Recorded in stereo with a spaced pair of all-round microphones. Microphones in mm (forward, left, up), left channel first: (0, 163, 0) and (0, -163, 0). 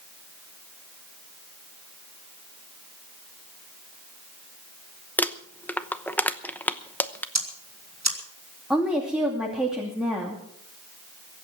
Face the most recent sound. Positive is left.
turn(degrees=0)  # may be behind; listen again after turning